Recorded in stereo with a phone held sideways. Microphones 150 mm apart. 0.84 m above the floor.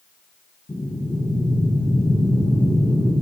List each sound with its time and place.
0.7 s breathing: 35° left (ahead or behind), 1.1 m